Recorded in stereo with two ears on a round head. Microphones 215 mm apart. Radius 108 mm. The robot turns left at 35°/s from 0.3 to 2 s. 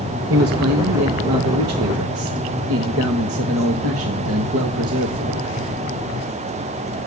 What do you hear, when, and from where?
0.3 s a man speaking: 55° right, 1.3 m; by 5.5 s 115° right, 1.3 m